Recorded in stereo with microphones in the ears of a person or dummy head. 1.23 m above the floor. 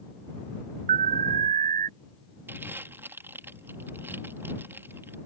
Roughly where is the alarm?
Right.